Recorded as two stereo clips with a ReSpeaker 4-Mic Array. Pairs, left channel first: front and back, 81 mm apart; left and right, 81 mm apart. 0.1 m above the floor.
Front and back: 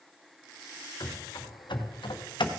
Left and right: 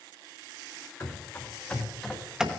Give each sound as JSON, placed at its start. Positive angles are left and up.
{"t": 1.0, "sound": "running footsteps", "azimuth_deg": 35, "distance_m": 2.5}